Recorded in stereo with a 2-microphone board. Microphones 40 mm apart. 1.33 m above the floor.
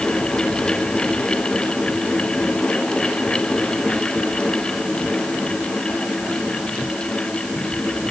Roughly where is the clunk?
I don't hear a clunk.